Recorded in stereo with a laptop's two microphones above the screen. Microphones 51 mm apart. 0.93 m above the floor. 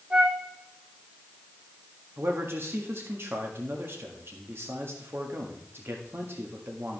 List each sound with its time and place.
0.1 s a flute: 30° right (ahead or behind), 2.5 m
2.2 s a man speaking: 55° right (ahead or behind), 1.6 m